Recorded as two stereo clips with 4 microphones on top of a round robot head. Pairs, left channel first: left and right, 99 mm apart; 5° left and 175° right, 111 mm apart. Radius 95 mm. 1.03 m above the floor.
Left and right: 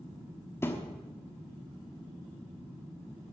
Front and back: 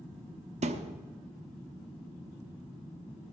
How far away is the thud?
About 1.0 m.